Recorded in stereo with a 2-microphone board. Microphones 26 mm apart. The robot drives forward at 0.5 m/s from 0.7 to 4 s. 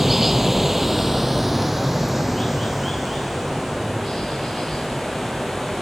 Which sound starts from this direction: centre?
Running water, at 0.0 s.